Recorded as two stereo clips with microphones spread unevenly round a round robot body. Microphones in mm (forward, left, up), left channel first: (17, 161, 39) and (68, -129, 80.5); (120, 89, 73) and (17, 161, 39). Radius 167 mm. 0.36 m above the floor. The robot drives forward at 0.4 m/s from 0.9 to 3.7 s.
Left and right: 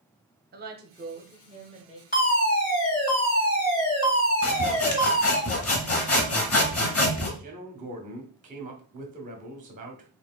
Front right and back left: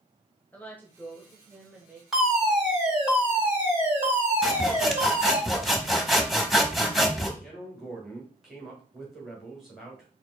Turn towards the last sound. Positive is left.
turn(degrees=-145)